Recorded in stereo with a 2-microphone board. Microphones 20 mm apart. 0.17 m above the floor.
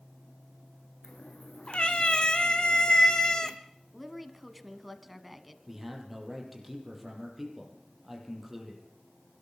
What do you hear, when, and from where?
1.0 s a cat meowing: 60° left (ahead or behind), 2.5 m; by 3.6 s 30° left (ahead or behind), 1.5 m
3.9 s a woman speaking: 5° right (ahead or behind), 1.7 m
5.7 s a man speaking: 15° right (ahead or behind), 6 m